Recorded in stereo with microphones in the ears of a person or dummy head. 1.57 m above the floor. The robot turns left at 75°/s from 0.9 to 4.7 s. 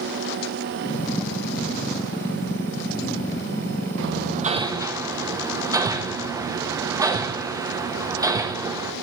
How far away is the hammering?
About 1.1 m.